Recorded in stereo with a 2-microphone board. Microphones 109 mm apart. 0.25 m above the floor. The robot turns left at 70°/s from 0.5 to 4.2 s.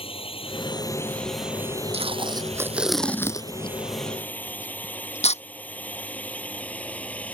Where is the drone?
60° left (ahead or behind); by 7.3 s 15° left (ahead or behind).